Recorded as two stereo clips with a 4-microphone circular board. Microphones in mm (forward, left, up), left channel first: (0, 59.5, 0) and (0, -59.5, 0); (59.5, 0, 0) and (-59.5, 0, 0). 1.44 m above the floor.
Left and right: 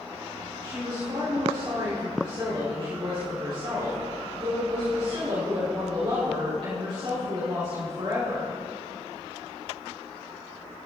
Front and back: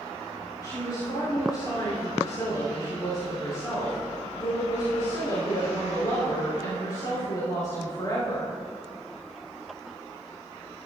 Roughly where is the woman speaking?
Ahead right.